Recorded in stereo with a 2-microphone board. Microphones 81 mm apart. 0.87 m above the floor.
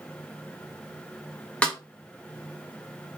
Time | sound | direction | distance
1.6 | a snare drum | 15° left (ahead or behind) | 1.0 m